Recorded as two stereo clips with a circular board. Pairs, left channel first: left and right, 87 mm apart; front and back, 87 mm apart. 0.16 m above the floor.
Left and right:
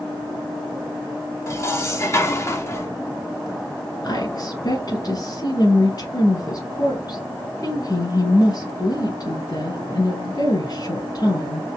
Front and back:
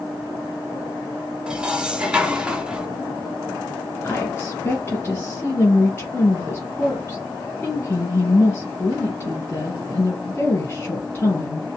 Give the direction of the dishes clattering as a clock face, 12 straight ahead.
8 o'clock.